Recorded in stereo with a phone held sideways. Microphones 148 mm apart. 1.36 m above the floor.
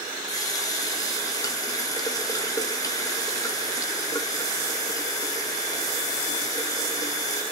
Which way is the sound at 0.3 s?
25° left (ahead or behind).